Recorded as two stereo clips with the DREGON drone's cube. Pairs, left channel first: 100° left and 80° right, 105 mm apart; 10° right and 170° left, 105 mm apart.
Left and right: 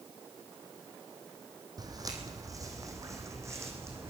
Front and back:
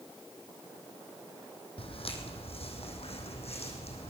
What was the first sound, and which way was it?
Footsteps, 30° right.